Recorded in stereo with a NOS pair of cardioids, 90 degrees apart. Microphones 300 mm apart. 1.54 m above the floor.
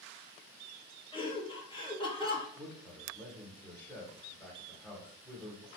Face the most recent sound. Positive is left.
turn(degrees=5)